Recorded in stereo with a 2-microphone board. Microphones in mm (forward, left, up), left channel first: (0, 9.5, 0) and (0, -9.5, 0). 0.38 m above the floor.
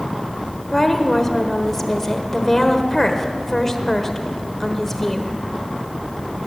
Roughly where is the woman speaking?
Centre.